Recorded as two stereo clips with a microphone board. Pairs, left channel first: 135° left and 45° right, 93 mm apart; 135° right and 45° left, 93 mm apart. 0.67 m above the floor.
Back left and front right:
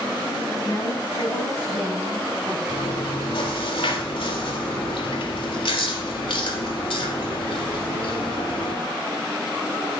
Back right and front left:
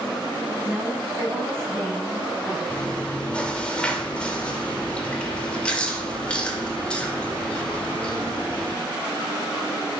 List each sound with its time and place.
0.6 s a woman speaking: 110° left, 6 m; by 2.6 s 100° left, 6.5 m
2.7 s chewing: 145° left, 1.7 m